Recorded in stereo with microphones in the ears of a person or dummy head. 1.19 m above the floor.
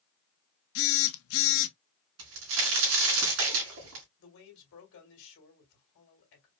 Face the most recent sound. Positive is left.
turn(degrees=65)  # may be behind; listen again after turning